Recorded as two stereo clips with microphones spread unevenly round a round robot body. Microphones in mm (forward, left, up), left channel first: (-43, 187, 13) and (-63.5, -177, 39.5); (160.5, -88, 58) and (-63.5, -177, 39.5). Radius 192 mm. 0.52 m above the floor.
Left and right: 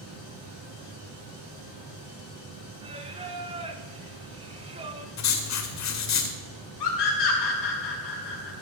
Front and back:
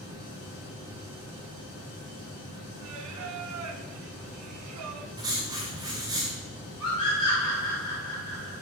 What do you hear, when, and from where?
2.8 s singing: 165° right, 1.0 m
5.2 s writing: 125° left, 1.8 m
6.8 s a scream: 100° left, 4.5 m